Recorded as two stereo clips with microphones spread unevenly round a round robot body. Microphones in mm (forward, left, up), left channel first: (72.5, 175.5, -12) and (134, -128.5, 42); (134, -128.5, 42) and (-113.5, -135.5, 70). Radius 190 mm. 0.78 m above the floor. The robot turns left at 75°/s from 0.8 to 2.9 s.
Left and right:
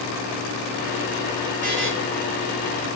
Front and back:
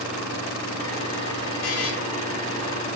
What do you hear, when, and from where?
1.6 s a buzzer: 15° right, 1.0 m; by 1.9 s 35° right, 1.0 m